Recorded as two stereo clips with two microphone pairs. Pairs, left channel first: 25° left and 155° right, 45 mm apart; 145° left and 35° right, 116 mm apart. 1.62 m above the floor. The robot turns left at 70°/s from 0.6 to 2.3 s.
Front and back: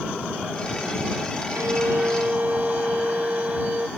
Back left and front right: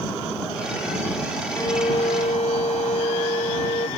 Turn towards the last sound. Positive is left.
turn(degrees=155)